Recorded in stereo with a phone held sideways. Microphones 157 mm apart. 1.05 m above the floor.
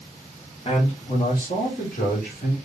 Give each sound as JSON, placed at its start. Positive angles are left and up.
{"t": 0.7, "sound": "a man speaking", "side_deg": 40, "distance_m": 1.6}